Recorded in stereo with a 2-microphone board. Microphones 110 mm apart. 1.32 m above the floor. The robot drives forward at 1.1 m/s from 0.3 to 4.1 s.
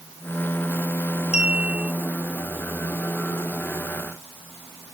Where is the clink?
85° left; by 1.9 s 80° left.